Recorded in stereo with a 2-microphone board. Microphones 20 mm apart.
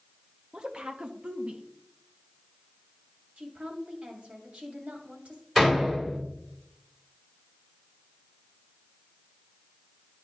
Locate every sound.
0.5 s a woman speaking: 50° right (ahead or behind), 0.7 m
3.4 s a woman speaking: 65° right (ahead or behind), 2 m
5.5 s a door slam: 5° right (ahead or behind), 3 m